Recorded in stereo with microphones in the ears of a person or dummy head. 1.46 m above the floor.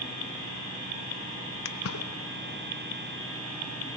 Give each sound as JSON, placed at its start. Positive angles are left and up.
{"t": 1.6, "sound": "a splash", "side_deg": 70, "distance_m": 0.8}